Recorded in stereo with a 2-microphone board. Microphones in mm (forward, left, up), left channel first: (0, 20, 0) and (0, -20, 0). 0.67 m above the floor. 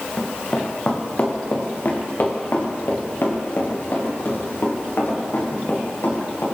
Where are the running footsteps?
40° left (ahead or behind), 2.5 m; by 6.5 s 65° left (ahead or behind), 5.5 m.